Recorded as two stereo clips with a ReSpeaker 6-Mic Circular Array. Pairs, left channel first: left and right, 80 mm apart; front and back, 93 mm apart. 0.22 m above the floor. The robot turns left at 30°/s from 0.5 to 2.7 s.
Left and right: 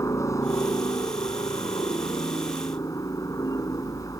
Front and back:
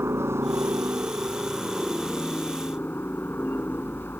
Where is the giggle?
No giggle in this recording.